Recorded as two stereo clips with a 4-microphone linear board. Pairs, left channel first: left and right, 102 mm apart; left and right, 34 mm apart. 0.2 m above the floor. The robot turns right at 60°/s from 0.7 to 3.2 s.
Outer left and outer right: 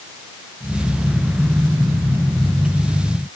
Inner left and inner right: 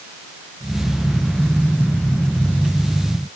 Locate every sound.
Only background noise.